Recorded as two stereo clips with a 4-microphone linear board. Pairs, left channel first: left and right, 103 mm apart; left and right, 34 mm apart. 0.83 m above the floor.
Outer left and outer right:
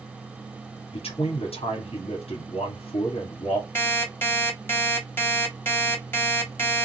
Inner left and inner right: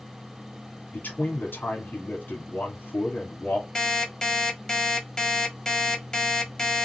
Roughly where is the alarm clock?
Centre.